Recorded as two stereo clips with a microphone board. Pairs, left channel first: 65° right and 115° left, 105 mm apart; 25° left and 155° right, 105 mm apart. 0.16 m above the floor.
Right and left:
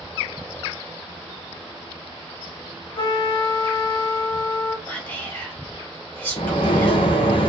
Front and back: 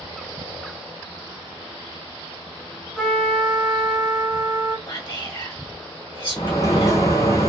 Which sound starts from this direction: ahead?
Whispering, at 4.9 s.